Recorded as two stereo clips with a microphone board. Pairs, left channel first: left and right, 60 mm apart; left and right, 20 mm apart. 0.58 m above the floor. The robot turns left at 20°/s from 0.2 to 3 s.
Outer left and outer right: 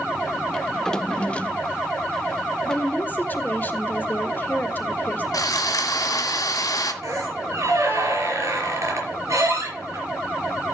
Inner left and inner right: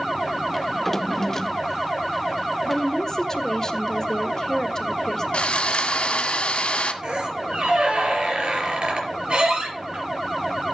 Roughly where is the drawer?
Centre.